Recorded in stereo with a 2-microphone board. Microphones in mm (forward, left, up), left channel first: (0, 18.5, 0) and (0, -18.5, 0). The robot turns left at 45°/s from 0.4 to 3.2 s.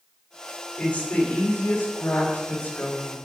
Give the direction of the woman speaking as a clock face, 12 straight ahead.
7 o'clock.